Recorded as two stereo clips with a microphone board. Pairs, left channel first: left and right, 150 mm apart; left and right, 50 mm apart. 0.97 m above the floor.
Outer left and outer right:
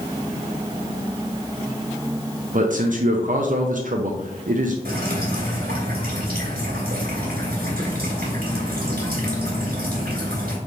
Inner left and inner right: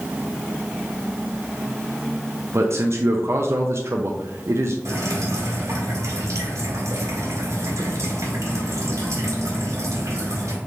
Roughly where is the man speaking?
Right.